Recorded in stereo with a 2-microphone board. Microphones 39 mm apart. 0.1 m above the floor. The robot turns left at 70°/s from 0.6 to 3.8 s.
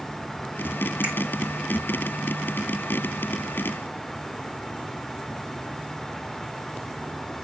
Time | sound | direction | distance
1.0 | a finger snap | 30° right (ahead or behind) | 6 m